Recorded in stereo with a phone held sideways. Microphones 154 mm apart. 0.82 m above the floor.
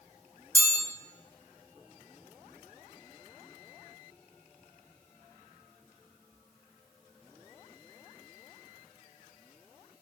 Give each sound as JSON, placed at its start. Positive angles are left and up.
{"t": 0.6, "sound": "a chime", "side_deg": 20, "distance_m": 1.2}